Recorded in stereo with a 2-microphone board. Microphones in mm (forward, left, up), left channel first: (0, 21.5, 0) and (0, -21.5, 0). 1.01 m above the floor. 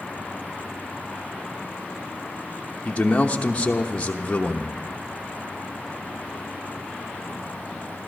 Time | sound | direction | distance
2.9 | a man speaking | 30° left (ahead or behind) | 1.0 m